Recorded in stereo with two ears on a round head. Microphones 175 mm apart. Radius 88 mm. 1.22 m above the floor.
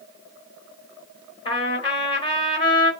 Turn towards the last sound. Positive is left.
turn(degrees=30)  # may be behind; listen again after turning